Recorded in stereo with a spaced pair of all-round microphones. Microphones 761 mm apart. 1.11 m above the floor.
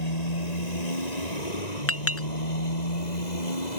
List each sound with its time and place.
0.0 s a motorcycle: 60° left (ahead or behind); by 3.8 s 65° left (ahead or behind)
1.9 s a clink: 20° left (ahead or behind)